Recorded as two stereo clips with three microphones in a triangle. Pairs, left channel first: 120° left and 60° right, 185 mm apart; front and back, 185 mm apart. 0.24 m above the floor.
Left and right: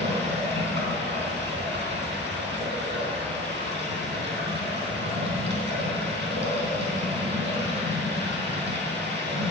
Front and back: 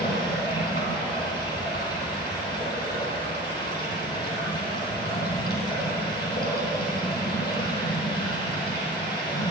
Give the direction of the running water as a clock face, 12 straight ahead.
1 o'clock.